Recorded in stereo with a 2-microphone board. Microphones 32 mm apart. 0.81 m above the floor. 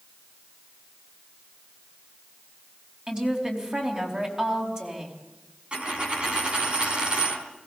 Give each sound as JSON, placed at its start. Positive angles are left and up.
{"t": 3.1, "sound": "a woman speaking", "side_deg": -25, "distance_m": 4.5}
{"t": 5.7, "sound": "a dropped coin", "side_deg": -30, "distance_m": 3.5}